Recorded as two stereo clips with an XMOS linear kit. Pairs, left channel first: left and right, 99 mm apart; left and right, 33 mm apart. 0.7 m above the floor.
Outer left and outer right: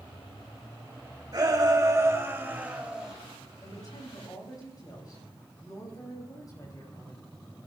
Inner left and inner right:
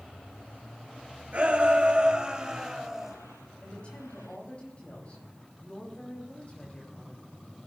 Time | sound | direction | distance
1.3 | a shout | 45° right (ahead or behind) | 3.5 m
3.6 | a woman speaking | 40° left (ahead or behind) | 6 m